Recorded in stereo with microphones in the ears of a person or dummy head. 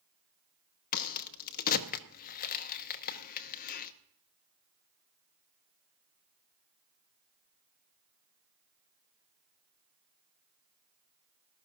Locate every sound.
0.9 s a crack: 45° left (ahead or behind), 0.8 m